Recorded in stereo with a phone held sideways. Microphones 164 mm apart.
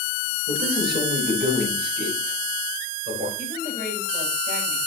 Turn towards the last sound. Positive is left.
turn(degrees=-60)  # may be behind; listen again after turning